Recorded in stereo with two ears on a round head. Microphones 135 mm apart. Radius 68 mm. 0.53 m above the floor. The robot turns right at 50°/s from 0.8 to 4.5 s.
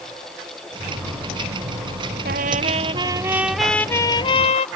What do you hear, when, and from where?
2.2 s a trumpet: 70° right; by 4.7 s 45° left